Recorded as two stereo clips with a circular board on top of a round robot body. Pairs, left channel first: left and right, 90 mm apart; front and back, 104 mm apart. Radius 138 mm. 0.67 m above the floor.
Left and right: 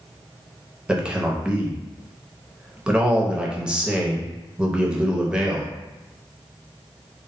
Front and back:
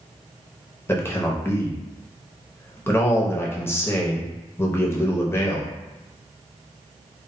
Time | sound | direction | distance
0.9 | a man speaking | 25° right | 0.8 m